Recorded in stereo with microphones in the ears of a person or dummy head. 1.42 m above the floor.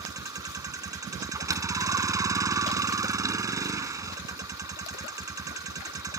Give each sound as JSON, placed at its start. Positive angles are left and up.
{"t": 0.0, "sound": "a vehicle", "side_deg": -10}